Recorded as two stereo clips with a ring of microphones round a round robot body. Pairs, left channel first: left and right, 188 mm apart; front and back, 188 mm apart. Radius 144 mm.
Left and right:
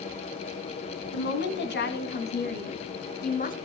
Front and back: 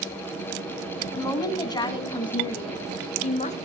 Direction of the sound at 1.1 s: 75° left.